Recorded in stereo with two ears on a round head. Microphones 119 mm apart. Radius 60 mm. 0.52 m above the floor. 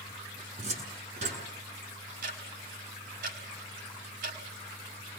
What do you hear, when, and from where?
0.6 s a cupboard door: 55° right (ahead or behind), 7 m
2.2 s ticking: 70° right (ahead or behind), 4.5 m